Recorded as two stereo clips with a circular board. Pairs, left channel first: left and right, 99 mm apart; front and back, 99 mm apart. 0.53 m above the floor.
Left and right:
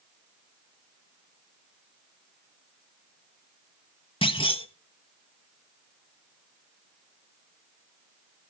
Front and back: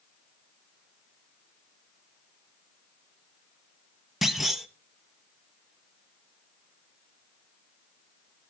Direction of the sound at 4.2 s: 90° left.